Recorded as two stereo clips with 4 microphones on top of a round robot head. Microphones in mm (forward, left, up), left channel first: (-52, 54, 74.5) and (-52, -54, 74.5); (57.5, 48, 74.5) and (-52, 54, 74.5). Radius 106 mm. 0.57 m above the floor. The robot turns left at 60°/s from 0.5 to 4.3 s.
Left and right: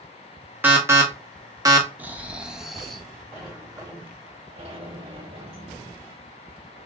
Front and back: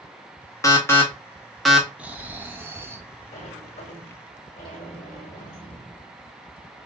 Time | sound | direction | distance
0.6 | an alarm | 35° right | 1.4 m
2.0 | snoring | 130° right | 0.9 m
3.3 | a sliding door | 5° left | 2 m